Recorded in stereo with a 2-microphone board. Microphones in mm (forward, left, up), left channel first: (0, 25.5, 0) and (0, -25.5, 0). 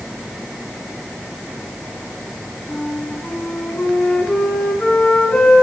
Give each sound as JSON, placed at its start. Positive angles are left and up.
{"t": 2.7, "sound": "a flute", "side_deg": 15, "distance_m": 3.0}